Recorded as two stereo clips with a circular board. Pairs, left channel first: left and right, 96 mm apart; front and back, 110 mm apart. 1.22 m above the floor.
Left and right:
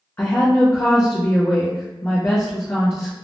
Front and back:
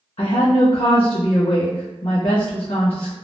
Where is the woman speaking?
25° left, 0.6 m.